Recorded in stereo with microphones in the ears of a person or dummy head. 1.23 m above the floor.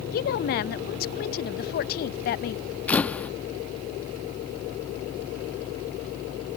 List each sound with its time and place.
0.1 s a woman speaking: 50° left (ahead or behind)
2.9 s a camera shutter: 5° left (ahead or behind)